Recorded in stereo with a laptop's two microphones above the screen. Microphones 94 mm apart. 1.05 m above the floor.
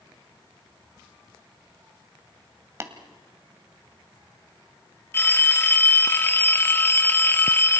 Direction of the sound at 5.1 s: 25° left (ahead or behind).